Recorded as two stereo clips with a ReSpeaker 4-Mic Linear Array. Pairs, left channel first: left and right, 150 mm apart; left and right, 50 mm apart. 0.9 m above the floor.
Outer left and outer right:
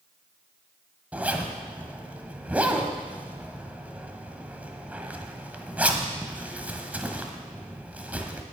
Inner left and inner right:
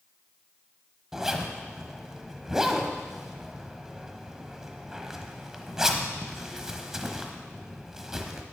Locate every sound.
1.1 s a zipper: 10° right (ahead or behind), 1.1 m